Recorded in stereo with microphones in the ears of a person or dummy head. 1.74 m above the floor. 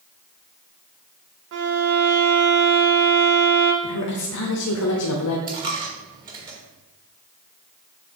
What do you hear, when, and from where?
1.5 s a violin: 65° right (ahead or behind), 0.8 m
3.8 s a woman speaking: 85° left, 0.9 m
5.5 s a dropped coin: 25° right (ahead or behind), 1.4 m